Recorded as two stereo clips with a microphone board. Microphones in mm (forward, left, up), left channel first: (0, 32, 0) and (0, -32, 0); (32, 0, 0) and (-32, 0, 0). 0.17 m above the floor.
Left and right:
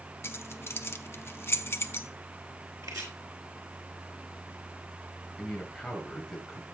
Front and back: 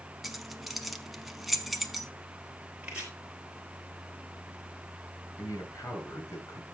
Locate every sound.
0.2 s keys jangling: 95° left, 0.9 m
2.8 s chopping: 110° right, 4 m
5.4 s a man speaking: 5° left, 3.5 m